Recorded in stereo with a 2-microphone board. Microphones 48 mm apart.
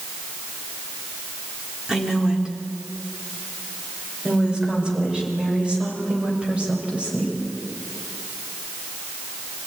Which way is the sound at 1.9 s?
15° right (ahead or behind).